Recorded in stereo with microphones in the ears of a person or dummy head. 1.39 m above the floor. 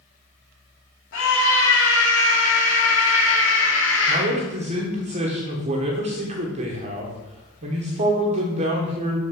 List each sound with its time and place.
1.1 s a scream: 85° left, 3 m
4.1 s a man speaking: 40° right (ahead or behind), 1.3 m